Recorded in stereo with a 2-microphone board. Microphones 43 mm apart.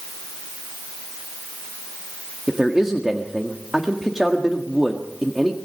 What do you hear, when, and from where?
2.5 s a man speaking: 10° right (ahead or behind), 1.7 m